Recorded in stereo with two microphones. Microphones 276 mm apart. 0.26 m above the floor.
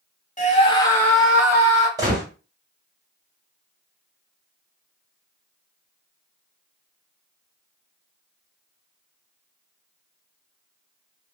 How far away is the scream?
About 1.0 m.